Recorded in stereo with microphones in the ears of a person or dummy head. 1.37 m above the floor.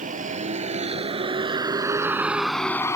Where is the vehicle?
40° right (ahead or behind); by 3.0 s 15° left (ahead or behind).